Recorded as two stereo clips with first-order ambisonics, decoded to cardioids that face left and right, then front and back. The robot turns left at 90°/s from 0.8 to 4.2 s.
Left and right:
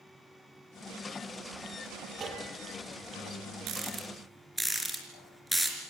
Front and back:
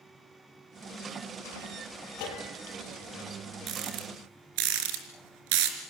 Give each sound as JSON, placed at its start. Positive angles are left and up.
{"t": 2.2, "sound": "a bell", "azimuth_deg": -20, "distance_m": 5.5}
{"t": 3.7, "sound": "a rattle", "azimuth_deg": -130, "distance_m": 4.0}